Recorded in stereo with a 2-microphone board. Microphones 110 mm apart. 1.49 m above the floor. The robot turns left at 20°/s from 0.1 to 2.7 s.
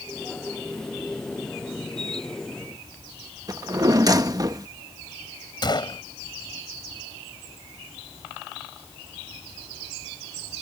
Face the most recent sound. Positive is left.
turn(degrees=40)  # may be behind; listen again after turning